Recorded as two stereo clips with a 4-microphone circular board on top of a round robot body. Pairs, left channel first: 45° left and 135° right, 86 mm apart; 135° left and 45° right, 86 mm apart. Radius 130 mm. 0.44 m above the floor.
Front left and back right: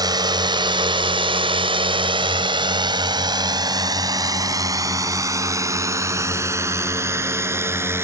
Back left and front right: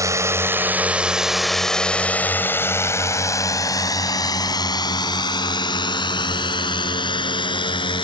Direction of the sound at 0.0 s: 95° right.